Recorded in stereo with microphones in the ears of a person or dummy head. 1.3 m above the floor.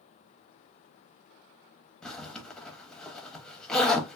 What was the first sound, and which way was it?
A zipper, 10° left (ahead or behind).